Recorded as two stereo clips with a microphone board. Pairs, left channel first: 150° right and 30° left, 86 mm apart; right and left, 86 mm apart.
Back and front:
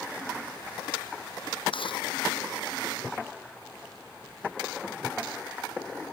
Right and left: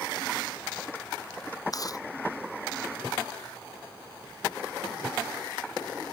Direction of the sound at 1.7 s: 135° right.